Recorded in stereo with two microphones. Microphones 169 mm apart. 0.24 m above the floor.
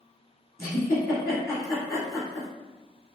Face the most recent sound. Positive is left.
turn(degrees=20)  # may be behind; listen again after turning